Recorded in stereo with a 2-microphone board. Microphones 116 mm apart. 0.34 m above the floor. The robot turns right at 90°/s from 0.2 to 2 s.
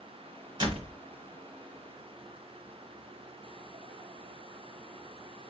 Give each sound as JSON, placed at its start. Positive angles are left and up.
{"t": 0.6, "sound": "a door slam", "azimuth_deg": -135, "distance_m": 1.8}